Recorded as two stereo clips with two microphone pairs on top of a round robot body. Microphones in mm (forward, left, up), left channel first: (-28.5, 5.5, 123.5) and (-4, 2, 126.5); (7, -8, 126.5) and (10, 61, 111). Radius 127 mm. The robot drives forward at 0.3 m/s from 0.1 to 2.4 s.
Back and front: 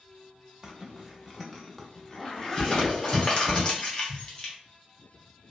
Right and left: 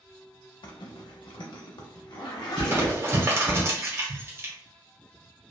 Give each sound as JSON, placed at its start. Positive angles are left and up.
{"t": 0.6, "sound": "a zipper", "azimuth_deg": -75, "distance_m": 0.6}
{"t": 2.6, "sound": "crumpling", "azimuth_deg": 120, "distance_m": 1.1}